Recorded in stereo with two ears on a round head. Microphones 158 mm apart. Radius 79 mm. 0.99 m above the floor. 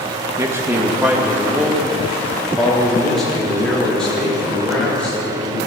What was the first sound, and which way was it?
A man speaking, 15° right (ahead or behind).